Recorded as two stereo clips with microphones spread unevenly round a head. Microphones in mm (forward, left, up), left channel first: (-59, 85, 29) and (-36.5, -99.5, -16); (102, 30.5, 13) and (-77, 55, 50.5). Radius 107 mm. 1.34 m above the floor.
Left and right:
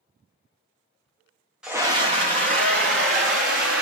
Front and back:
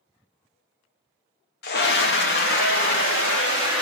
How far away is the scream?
About 0.8 m.